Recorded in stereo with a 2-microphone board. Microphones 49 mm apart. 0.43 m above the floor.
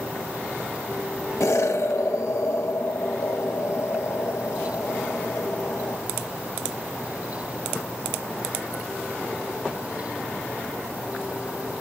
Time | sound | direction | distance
1.4 | an explosion | 70° left (ahead or behind) | 0.5 m